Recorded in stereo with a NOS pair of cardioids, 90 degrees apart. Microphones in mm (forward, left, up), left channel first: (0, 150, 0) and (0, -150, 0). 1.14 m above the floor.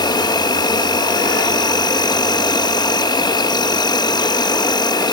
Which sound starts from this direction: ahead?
An insect, at 0.0 s.